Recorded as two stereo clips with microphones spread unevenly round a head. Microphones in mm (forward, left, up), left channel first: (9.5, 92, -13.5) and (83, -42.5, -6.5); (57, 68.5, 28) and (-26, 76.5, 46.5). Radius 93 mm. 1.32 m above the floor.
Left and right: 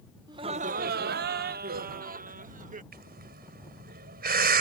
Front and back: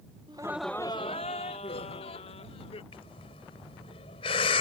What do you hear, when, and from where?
0.3 s laughter: 130° right; by 2.8 s 25° right
2.9 s breathing: 40° right